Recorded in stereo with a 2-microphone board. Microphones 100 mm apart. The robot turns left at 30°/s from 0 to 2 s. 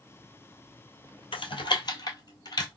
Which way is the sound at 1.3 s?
60° left (ahead or behind).